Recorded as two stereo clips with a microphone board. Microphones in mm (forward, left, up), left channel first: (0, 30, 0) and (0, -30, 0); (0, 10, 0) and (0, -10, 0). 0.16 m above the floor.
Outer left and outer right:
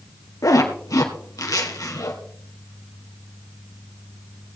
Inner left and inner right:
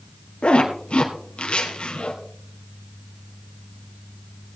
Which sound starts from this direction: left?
A zipper, at 0.4 s.